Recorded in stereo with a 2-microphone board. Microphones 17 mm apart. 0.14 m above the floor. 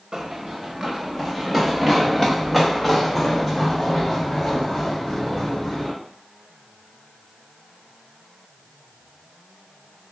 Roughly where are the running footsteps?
Right.